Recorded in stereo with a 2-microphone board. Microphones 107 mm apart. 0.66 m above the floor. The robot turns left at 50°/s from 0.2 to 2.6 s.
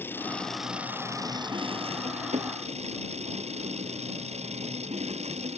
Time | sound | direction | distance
0.0 | an engine running | 20° left | ?